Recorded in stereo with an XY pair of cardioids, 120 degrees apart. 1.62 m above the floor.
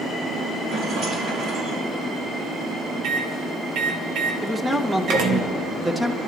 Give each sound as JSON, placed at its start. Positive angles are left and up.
{"t": 0.7, "sound": "a rattle", "azimuth_deg": -70, "distance_m": 5.5}
{"t": 3.0, "sound": "a microwave", "azimuth_deg": -65, "distance_m": 1.5}
{"t": 4.4, "sound": "a man speaking", "azimuth_deg": -10, "distance_m": 1.2}